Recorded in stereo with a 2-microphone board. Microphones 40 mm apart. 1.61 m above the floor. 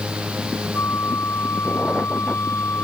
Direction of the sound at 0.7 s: 85° left.